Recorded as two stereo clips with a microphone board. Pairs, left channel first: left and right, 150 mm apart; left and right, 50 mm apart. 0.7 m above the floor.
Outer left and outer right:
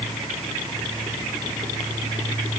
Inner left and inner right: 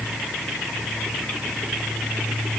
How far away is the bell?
No bell in this recording.